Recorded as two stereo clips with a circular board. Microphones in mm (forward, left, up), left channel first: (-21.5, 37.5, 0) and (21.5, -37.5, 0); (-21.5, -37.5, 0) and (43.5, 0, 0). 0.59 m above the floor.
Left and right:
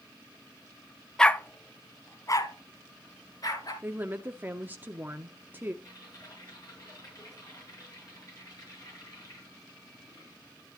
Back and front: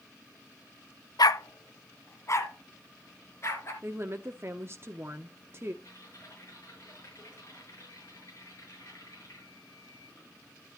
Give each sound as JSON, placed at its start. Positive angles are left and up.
{"t": 1.2, "sound": "a dog barking", "azimuth_deg": -160, "distance_m": 0.5}
{"t": 3.8, "sound": "a woman speaking", "azimuth_deg": -5, "distance_m": 0.7}
{"t": 5.8, "sound": "typing on a keyboard", "azimuth_deg": 165, "distance_m": 6.0}